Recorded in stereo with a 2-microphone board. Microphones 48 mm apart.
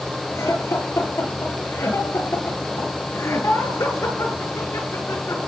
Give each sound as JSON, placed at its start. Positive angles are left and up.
{"t": 0.3, "sound": "laughter", "side_deg": 85, "distance_m": 8.5}